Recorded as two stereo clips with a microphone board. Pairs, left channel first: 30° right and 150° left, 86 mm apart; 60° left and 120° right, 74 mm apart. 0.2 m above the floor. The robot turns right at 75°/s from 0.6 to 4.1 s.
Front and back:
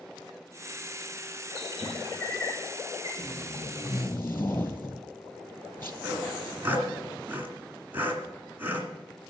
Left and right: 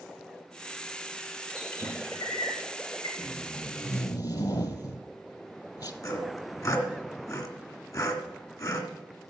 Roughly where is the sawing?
Left.